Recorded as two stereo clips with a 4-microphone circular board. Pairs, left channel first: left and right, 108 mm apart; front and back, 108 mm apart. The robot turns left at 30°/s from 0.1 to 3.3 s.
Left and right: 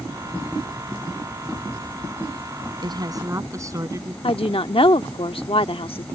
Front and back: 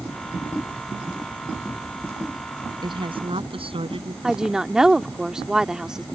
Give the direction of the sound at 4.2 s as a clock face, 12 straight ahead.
9 o'clock.